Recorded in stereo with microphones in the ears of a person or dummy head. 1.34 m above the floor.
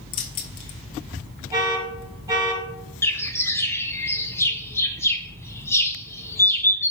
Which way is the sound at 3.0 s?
15° left (ahead or behind).